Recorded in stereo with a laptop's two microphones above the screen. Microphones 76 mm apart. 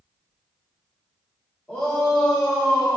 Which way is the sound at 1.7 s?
20° left (ahead or behind).